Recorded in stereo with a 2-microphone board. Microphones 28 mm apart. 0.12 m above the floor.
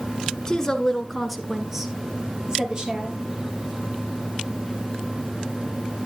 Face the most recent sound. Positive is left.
turn(degrees=-30)  # may be behind; listen again after turning